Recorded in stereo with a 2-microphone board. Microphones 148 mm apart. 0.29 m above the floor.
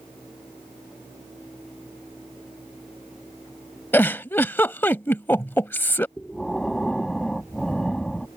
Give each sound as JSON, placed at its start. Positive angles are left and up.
{"t": 3.9, "sound": "a giggle", "side_deg": 15}
{"t": 6.2, "sound": "breathing", "side_deg": 0}